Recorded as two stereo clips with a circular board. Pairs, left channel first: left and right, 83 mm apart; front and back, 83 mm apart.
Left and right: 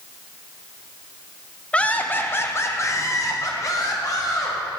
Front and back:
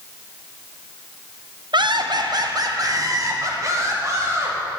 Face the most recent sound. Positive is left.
turn(degrees=130)